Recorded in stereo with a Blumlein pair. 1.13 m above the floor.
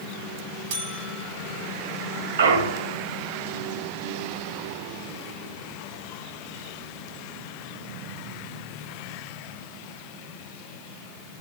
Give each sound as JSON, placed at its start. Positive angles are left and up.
{"t": 0.7, "sound": "a buzzer", "azimuth_deg": -55, "distance_m": 1.4}
{"t": 2.4, "sound": "a clunk", "azimuth_deg": -65, "distance_m": 1.6}